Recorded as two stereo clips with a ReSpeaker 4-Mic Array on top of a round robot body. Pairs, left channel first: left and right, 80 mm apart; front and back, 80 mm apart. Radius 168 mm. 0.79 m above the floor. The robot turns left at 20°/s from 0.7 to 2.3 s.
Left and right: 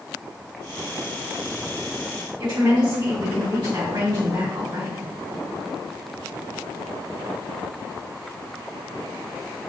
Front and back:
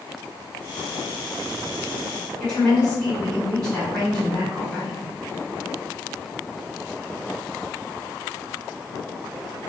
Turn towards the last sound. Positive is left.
turn(degrees=-80)